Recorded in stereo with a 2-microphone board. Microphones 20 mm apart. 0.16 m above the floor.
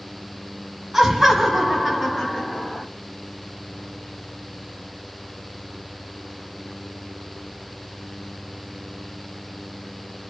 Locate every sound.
0.9 s laughter: 15° right (ahead or behind), 1.7 m; by 2.9 s 20° left (ahead or behind), 1.7 m